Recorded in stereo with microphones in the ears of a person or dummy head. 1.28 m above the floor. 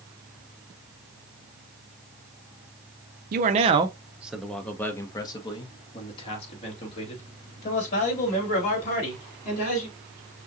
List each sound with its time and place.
3.3 s a man speaking: 45° right (ahead or behind), 0.7 m; by 9.9 s 50° left (ahead or behind), 4 m